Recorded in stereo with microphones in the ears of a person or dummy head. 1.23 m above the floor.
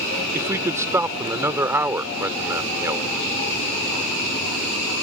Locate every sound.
0.3 s a man speaking: 10° right (ahead or behind)